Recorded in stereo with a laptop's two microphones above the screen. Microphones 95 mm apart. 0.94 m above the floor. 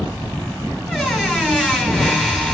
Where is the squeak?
Centre (ahead or behind), 1.4 m.